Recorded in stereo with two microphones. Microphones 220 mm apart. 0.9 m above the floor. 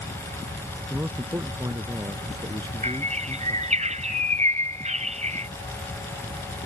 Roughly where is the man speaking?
Centre.